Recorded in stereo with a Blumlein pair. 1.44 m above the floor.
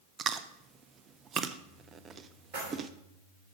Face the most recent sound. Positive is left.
turn(degrees=-45)